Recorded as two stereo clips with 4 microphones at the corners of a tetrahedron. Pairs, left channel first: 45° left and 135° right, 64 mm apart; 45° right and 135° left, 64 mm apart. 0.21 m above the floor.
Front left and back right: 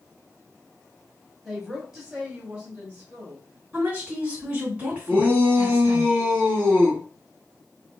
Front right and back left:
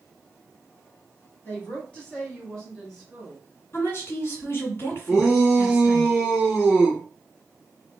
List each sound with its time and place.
1.4 s a woman speaking: 50° right, 1.6 m; by 3.4 s 140° right, 1.6 m
3.7 s a woman speaking: 70° right, 2.0 m
5.1 s a shout: 150° right, 1.8 m